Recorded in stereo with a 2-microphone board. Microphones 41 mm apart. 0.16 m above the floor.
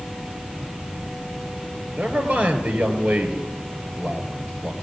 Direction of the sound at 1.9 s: 30° right (ahead or behind).